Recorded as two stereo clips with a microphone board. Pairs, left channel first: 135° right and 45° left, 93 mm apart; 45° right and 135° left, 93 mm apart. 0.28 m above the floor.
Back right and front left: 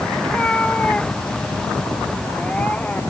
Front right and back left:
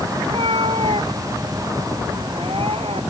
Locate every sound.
0.2 s a cat meowing: 145° left